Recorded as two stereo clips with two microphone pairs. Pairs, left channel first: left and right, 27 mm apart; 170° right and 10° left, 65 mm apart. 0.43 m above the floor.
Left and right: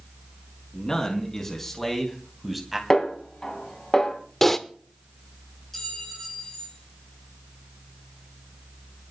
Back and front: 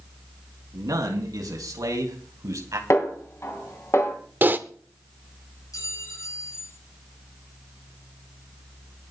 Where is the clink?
165° left, 7 m.